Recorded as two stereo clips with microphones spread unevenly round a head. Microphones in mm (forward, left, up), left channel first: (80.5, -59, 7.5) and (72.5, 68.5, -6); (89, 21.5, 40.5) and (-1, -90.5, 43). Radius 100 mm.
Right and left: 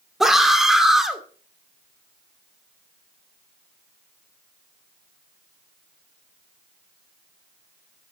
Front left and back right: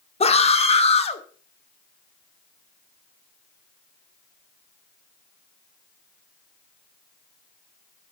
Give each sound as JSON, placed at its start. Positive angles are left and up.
{"t": 0.2, "sound": "a scream", "azimuth_deg": 5, "distance_m": 2.5}